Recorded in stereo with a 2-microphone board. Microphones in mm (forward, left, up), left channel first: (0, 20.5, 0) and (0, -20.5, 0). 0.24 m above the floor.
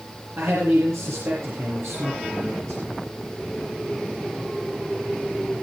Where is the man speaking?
70° right (ahead or behind), 5 m.